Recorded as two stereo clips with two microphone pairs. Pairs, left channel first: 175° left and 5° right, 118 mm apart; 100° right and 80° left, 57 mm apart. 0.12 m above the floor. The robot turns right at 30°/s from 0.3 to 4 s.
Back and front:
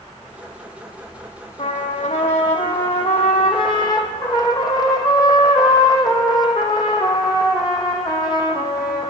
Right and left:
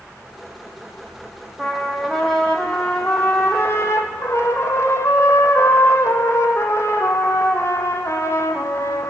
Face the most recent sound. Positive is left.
turn(degrees=-130)